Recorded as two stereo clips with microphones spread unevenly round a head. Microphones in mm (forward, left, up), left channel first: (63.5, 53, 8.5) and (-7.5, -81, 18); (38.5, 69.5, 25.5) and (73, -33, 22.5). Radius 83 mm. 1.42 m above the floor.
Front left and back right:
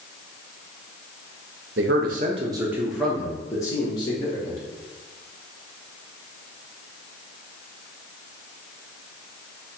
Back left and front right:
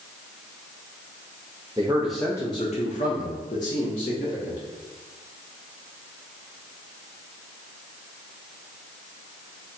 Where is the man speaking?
140° right, 0.6 m; by 4.6 s 125° left, 1.4 m.